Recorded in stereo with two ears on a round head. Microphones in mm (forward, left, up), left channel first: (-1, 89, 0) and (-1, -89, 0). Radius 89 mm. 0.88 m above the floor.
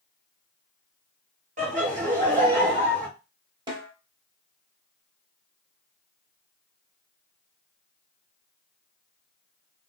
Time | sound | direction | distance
1.6 | laughter | 40° right (ahead or behind) | 1.2 m
3.7 | a snare drum | 20° right (ahead or behind) | 0.9 m